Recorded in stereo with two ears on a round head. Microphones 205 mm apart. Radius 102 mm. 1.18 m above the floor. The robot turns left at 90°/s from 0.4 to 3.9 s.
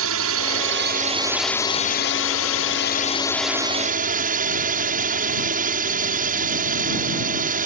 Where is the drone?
85° right; by 7.7 s 40° right.